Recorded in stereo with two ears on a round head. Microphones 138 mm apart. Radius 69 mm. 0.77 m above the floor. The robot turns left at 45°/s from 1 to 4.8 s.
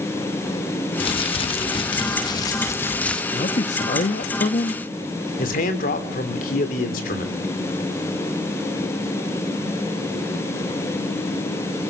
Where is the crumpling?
110° left, 1.0 m; by 3.2 s 10° left, 1.0 m.